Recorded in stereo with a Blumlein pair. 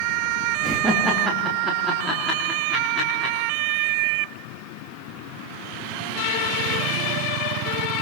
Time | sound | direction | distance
0.6 | laughter | 10° right | 3.5 m